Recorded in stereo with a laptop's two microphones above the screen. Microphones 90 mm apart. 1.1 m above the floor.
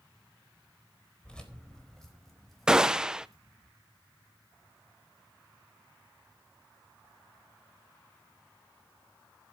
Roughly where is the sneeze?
No sneeze in this recording.